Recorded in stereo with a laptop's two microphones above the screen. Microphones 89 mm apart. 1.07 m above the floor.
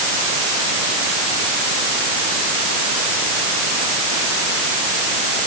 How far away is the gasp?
No gasp in this recording.